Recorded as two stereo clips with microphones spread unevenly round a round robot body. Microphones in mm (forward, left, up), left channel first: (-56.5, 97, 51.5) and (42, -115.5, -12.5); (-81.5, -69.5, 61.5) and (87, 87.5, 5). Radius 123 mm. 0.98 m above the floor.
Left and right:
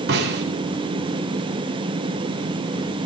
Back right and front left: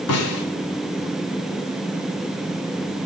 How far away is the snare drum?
About 3.5 m.